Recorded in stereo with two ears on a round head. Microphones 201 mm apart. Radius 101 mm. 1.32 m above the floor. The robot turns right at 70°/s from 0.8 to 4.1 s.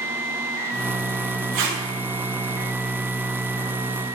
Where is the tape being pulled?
60° right (ahead or behind), 2.5 m; by 1.8 s 40° right (ahead or behind), 2.5 m.